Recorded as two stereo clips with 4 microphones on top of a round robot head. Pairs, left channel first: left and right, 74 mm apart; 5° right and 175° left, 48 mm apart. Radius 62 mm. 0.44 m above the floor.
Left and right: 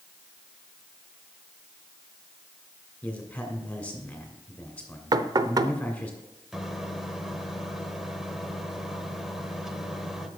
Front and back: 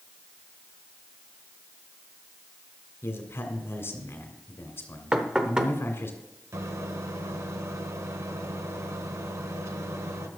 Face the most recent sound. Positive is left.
turn(degrees=-175)